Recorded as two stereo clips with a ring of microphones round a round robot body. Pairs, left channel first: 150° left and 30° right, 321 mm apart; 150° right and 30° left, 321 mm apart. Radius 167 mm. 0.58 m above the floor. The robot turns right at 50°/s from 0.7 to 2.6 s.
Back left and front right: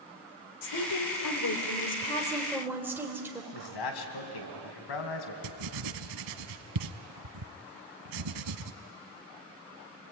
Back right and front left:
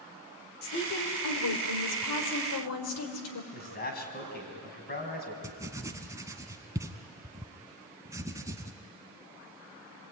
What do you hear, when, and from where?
0.6 s a woman speaking: 150° left, 3 m; by 3.4 s 115° right, 3 m
3.5 s a man speaking: 150° left, 4 m
5.4 s writing: 50° right, 0.8 m